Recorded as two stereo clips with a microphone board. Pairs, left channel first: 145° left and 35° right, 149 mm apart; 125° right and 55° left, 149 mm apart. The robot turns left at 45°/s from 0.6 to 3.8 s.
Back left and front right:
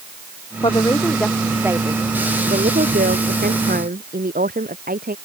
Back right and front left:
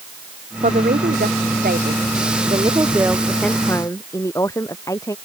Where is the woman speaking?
90° left; by 5.2 s 55° right.